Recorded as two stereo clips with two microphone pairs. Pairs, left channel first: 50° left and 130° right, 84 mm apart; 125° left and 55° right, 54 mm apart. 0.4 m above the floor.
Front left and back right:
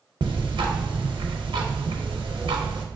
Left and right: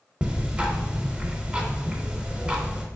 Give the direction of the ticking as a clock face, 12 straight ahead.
4 o'clock.